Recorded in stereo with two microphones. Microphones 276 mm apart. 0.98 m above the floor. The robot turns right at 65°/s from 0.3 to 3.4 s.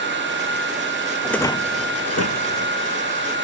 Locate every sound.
1.2 s a rattle: centre (ahead or behind); by 2.7 s 85° left